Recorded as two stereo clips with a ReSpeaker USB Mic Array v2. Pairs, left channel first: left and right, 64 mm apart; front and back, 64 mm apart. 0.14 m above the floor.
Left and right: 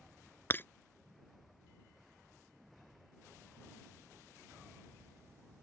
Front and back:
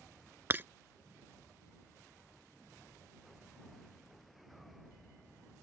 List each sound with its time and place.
0.5 s breaking glass: 135° left